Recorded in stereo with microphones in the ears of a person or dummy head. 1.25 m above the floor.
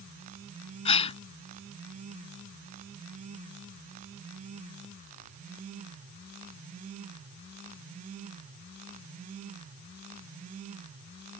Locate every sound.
0.8 s a gasp: 30° left (ahead or behind)